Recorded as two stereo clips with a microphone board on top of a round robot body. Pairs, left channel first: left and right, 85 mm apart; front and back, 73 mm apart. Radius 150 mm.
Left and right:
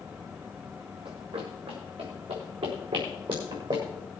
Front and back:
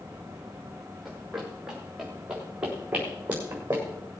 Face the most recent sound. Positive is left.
turn(degrees=-115)